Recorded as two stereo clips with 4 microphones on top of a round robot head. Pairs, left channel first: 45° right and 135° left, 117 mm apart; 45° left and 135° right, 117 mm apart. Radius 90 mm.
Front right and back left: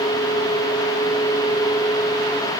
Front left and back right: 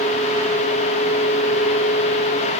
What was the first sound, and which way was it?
Only background noise.